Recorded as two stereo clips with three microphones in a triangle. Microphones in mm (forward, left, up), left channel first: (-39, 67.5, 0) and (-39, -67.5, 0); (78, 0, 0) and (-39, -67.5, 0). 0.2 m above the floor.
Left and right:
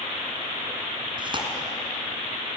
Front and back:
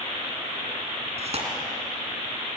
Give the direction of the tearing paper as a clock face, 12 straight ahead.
4 o'clock.